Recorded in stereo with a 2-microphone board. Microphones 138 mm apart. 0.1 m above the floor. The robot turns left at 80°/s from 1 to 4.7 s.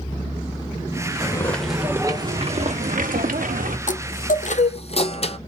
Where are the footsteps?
25° left (ahead or behind), 1.6 m; by 3.8 s 70° right (ahead or behind), 1.3 m.